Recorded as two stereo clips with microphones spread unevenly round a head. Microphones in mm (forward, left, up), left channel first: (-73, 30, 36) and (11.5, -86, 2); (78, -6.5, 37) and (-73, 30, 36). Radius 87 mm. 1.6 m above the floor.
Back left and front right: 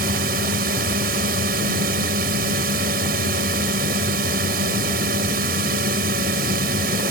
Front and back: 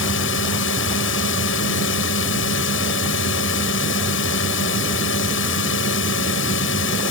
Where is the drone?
10° right.